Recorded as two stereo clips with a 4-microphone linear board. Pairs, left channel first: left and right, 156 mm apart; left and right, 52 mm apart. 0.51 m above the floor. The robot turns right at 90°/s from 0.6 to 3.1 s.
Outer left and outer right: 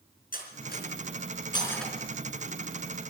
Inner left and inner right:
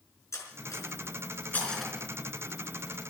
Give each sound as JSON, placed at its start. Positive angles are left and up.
{"t": 0.3, "sound": "cutlery clinking", "side_deg": 65, "distance_m": 4.0}